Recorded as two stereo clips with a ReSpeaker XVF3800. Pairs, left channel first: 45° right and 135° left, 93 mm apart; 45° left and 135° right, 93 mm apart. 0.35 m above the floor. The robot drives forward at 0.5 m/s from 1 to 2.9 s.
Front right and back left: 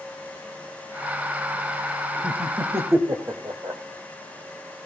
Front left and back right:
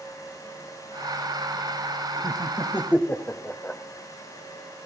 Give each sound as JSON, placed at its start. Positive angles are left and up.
{"t": 2.2, "sound": "laughter", "azimuth_deg": 85, "distance_m": 1.5}